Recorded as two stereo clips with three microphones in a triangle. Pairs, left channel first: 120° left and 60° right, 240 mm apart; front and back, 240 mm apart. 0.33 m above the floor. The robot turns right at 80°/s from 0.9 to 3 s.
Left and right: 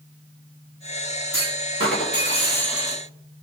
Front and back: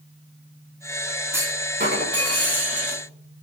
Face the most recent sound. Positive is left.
turn(degrees=-125)